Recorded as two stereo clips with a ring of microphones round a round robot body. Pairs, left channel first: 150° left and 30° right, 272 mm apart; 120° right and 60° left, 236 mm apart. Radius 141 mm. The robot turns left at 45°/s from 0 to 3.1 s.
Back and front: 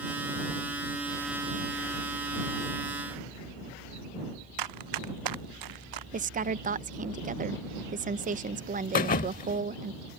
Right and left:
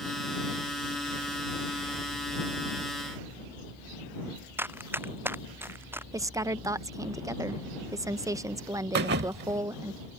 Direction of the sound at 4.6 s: 20° right.